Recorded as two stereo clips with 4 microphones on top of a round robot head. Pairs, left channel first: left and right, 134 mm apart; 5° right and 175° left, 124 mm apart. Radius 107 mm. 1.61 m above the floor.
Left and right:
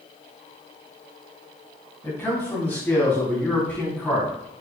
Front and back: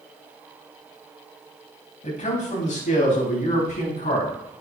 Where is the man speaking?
15° left, 3 m; by 4.6 s 10° left, 4.5 m.